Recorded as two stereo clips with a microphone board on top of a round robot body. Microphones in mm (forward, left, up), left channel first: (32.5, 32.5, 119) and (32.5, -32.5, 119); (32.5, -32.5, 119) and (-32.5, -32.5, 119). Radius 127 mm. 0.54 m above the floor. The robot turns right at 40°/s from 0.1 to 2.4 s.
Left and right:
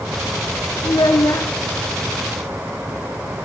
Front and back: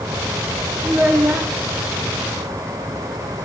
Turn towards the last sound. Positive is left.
turn(degrees=160)